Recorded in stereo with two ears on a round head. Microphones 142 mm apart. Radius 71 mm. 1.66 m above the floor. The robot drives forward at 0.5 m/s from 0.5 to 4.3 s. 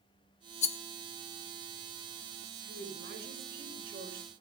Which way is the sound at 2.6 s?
70° right (ahead or behind).